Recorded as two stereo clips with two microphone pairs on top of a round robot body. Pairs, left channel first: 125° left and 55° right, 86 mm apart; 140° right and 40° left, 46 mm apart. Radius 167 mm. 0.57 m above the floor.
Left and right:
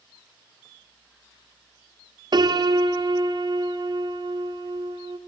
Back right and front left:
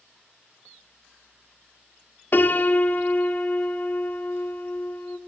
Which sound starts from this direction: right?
A piano, at 2.3 s.